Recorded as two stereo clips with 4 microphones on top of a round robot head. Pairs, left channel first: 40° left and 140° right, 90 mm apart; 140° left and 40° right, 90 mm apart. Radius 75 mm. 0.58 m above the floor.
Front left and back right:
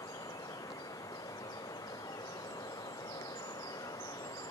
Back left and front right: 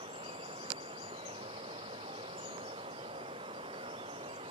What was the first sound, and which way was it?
Running water, 10° right.